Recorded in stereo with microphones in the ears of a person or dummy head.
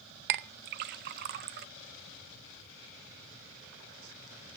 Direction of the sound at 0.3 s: 50° right (ahead or behind).